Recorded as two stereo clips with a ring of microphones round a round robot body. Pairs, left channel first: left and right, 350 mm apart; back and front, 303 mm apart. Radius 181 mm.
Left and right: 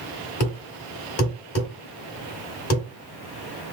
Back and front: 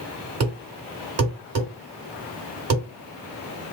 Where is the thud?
40° left, 1.4 m.